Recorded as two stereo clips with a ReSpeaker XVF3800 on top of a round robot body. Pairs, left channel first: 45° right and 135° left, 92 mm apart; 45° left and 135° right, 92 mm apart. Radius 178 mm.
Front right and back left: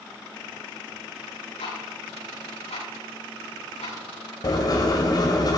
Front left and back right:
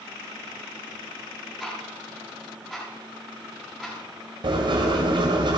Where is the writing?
95° right, 1.8 m.